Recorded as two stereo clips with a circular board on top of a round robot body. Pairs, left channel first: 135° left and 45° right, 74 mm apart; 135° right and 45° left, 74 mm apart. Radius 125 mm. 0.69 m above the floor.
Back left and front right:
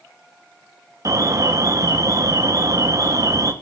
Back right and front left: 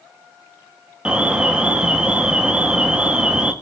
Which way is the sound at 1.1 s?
30° right.